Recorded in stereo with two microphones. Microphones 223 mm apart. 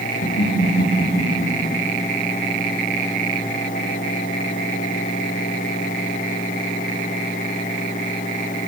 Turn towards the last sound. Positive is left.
turn(degrees=80)